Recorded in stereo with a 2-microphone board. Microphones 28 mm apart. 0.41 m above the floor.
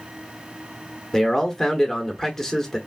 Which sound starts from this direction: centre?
A man speaking, at 1.1 s.